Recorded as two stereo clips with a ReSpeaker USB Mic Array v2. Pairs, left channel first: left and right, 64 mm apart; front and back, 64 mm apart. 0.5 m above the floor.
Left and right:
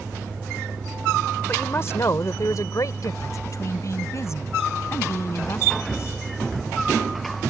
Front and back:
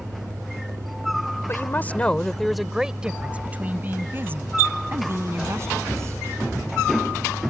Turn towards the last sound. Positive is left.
turn(degrees=135)